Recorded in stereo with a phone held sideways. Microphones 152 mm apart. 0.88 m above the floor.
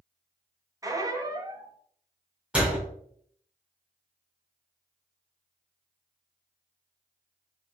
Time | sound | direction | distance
0.8 | a squeak | 20° right (ahead or behind) | 0.6 m
2.5 | a door slam | 5° right (ahead or behind) | 1.8 m